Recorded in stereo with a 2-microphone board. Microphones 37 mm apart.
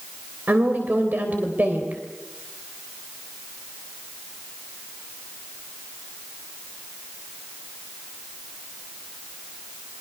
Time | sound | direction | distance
0.5 | a woman speaking | 50° right (ahead or behind) | 3 m